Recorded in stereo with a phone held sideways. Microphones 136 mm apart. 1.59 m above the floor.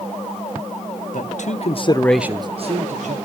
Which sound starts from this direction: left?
A man speaking, at 1.1 s.